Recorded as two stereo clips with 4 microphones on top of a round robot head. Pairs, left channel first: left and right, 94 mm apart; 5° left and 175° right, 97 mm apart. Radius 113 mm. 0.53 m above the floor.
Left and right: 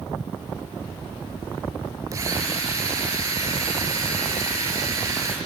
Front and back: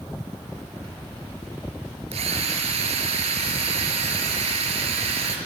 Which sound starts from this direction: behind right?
A drill, at 2.1 s.